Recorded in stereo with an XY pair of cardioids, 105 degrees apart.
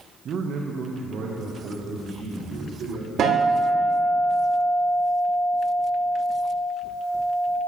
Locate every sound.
0.2 s a man speaking: 55° right, 0.6 m; by 3.1 s 75° right, 2.5 m
3.2 s a guitar: 60° right, 3 m